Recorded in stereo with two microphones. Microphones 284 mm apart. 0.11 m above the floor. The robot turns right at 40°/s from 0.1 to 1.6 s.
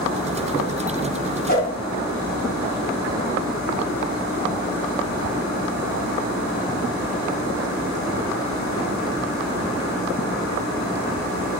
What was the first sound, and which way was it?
A whoosh, 35° left (ahead or behind).